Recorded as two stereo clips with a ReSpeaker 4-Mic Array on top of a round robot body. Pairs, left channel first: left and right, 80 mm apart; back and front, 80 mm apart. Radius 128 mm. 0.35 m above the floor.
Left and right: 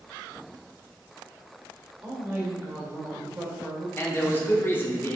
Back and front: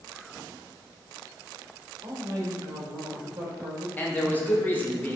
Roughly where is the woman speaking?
Ahead right.